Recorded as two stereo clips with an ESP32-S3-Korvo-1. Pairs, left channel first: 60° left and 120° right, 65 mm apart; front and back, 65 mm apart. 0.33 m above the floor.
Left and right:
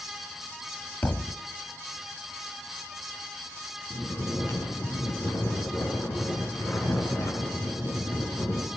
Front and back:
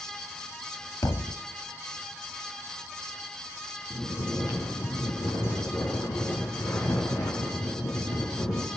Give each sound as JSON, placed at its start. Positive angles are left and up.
{"t": 1.0, "sound": "a thud", "azimuth_deg": 5, "distance_m": 0.8}
{"t": 3.9, "sound": "snoring", "azimuth_deg": 15, "distance_m": 4.5}